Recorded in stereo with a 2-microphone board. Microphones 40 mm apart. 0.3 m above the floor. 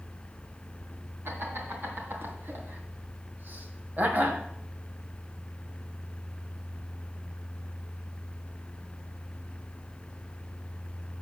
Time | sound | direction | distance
1.2 | laughter | 65° right (ahead or behind) | 3.5 m